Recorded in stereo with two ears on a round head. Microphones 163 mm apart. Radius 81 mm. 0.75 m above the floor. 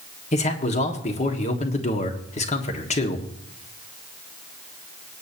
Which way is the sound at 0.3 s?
40° left (ahead or behind).